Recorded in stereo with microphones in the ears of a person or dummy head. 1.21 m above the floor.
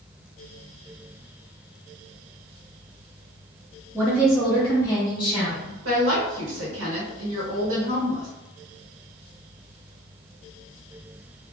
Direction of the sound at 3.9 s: 10° right (ahead or behind).